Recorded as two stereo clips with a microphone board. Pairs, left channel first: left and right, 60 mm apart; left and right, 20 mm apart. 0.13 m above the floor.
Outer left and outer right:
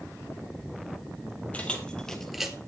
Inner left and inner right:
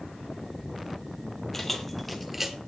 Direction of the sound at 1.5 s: 20° left (ahead or behind).